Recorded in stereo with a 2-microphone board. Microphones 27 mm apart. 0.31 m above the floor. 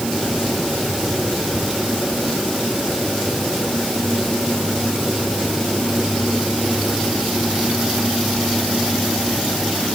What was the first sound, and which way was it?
Only background noise.